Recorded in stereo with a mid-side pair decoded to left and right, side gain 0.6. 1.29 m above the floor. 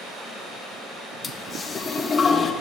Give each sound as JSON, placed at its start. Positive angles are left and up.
{"t": 1.2, "sound": "a toilet flushing", "azimuth_deg": 30, "distance_m": 1.3}